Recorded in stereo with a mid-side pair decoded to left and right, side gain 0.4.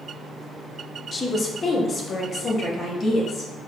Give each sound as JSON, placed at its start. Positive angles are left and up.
{"t": 1.1, "sound": "a woman speaking", "azimuth_deg": 30, "distance_m": 0.8}